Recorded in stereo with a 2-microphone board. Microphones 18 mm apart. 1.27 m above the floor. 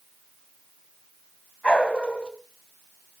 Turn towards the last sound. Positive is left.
turn(degrees=70)  # may be behind; listen again after turning